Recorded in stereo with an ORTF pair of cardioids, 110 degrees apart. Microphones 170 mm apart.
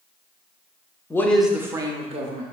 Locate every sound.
1.1 s a man speaking: 15° left, 0.5 m; by 2.4 s 45° right, 0.8 m